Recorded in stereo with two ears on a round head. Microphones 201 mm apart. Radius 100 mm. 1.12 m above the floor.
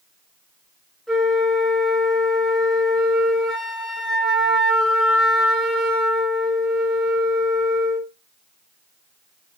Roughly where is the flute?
Centre.